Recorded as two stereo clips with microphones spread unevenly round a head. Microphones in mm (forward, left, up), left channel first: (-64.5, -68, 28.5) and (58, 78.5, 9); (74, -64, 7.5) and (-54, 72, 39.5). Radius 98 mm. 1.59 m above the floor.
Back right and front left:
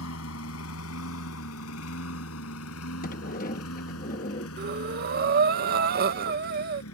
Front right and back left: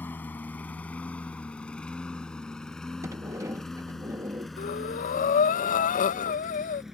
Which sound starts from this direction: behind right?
A lawn mower, at 0.0 s.